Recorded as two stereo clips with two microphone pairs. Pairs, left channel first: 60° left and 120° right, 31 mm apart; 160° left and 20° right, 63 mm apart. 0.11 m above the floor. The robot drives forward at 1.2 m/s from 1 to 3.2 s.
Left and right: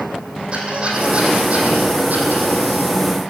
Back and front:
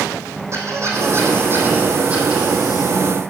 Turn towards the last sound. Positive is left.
turn(degrees=-115)